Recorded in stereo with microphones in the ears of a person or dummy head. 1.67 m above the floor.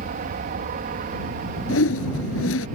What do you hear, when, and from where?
0.0 s an aircraft: 55° right (ahead or behind)
1.7 s a whoosh: 80° left